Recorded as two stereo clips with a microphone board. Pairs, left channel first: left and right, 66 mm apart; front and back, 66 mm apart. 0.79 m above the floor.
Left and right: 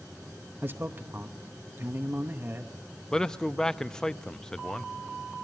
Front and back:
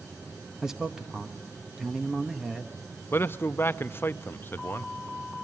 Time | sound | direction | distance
0.6 | a man speaking | 105° right | 1.0 m
3.1 | a man speaking | 15° left | 0.5 m